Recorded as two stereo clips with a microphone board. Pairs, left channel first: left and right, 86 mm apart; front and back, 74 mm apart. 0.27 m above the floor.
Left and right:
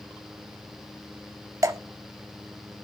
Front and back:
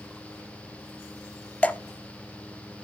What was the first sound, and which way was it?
Dripping, 65° right.